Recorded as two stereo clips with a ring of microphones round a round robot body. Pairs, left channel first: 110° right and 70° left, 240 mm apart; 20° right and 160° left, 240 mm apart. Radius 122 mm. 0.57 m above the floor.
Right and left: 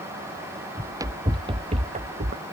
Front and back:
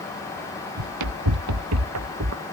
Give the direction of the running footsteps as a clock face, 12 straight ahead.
7 o'clock.